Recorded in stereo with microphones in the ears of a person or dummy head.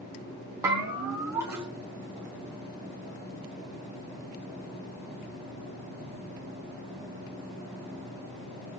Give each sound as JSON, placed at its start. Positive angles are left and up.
{"t": 0.6, "sound": "a bell", "side_deg": -15, "distance_m": 1.4}